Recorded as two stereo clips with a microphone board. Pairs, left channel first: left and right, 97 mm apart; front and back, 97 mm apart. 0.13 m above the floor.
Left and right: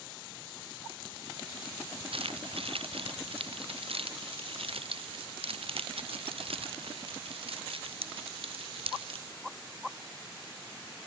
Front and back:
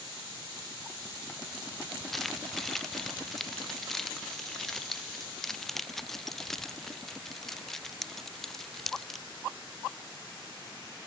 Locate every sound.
2.1 s keys jangling: 90° right; by 9.2 s 85° right